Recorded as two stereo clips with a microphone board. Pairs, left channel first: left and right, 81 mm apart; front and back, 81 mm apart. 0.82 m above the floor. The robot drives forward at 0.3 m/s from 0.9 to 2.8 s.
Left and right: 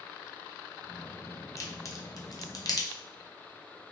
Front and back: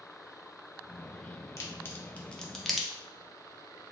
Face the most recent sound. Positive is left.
turn(degrees=95)